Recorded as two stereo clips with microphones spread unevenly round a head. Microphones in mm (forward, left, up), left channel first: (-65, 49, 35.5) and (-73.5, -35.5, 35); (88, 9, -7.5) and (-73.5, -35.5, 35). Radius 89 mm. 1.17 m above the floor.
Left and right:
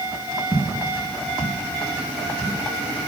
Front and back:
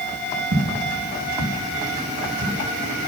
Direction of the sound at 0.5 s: 175° left.